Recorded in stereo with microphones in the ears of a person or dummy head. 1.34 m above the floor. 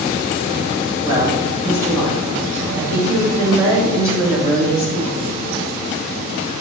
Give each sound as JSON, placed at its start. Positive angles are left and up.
{"t": 1.0, "sound": "a woman speaking", "side_deg": -20, "distance_m": 4.0}